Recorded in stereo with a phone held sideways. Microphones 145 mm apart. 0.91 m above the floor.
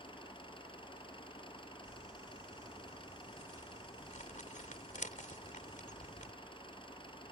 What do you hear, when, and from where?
0.0 s an engine running: 35° left (ahead or behind)
1.9 s crumpling: 65° left (ahead or behind)